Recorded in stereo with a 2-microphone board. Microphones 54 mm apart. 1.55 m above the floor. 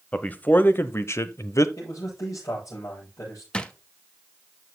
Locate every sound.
0.1 s a man speaking: 25° left (ahead or behind), 1.0 m; by 1.7 s 70° left (ahead or behind), 0.7 m
1.8 s a man speaking: 75° left (ahead or behind), 7 m
3.5 s a drawer: 20° left (ahead or behind), 0.8 m